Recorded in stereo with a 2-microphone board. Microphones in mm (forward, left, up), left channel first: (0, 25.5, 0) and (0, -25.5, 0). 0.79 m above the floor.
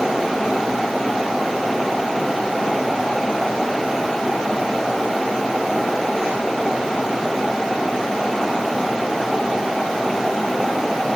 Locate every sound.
Only background noise.